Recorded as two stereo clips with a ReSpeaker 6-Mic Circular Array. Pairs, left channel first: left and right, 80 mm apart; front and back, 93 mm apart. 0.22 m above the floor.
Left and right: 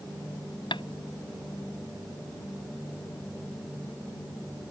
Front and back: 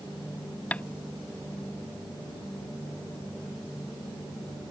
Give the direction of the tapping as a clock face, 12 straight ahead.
9 o'clock.